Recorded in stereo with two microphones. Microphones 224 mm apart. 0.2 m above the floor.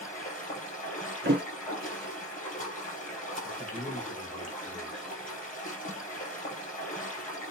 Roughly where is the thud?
Right.